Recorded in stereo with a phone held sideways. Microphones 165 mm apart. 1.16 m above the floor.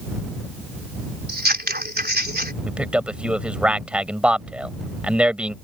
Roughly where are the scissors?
Right.